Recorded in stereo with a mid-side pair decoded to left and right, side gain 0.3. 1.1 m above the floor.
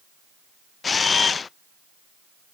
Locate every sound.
0.8 s a camera shutter: 55° left, 0.6 m